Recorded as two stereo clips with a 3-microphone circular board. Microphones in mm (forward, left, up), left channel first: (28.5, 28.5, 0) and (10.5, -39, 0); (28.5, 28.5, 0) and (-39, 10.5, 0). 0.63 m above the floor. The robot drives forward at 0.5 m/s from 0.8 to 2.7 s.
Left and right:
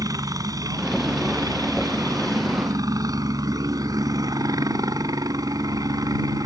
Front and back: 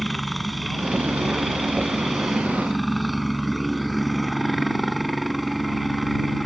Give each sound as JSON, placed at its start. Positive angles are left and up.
{"t": 0.0, "sound": "a helicopter", "azimuth_deg": -75}